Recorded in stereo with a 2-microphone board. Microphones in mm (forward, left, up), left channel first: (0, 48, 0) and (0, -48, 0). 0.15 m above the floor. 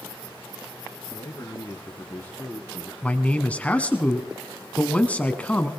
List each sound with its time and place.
1.1 s a man speaking: 45° left (ahead or behind), 2.5 m; by 2.9 s 5° left (ahead or behind), 1.6 m
3.0 s a man speaking: 15° left (ahead or behind), 1.1 m